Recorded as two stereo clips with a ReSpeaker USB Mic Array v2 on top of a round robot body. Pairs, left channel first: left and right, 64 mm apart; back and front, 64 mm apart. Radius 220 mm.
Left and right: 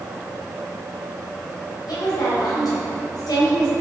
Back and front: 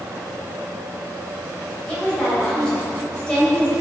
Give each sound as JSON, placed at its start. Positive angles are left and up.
{"t": 1.9, "sound": "a woman speaking", "azimuth_deg": 105, "distance_m": 3.5}